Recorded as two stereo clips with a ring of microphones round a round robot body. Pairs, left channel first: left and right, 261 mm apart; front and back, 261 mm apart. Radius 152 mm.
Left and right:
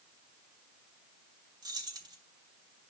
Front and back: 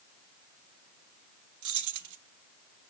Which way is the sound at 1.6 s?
165° right.